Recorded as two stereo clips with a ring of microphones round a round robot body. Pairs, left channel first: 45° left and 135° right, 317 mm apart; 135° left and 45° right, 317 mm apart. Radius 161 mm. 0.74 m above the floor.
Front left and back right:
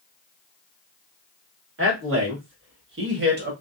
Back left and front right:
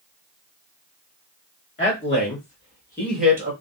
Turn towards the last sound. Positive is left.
turn(degrees=-110)